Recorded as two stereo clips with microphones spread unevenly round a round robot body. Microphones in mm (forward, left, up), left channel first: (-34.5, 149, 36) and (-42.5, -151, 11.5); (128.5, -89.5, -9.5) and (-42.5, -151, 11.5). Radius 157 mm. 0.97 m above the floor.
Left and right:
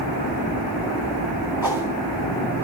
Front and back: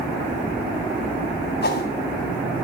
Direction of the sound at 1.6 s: 10° right.